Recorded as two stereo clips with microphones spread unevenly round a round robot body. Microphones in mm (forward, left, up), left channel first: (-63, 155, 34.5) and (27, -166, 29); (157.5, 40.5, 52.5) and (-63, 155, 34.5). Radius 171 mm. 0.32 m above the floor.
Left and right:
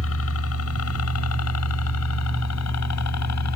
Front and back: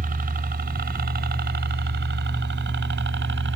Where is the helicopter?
125° left; by 3.6 s 130° left.